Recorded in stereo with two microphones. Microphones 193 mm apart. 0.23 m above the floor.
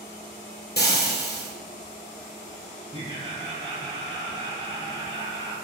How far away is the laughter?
About 1.9 m.